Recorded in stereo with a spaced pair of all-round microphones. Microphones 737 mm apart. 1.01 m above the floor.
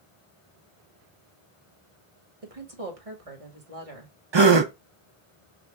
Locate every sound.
2.4 s a woman speaking: 50° right (ahead or behind), 1.5 m
4.3 s a gasp: 40° right (ahead or behind), 0.6 m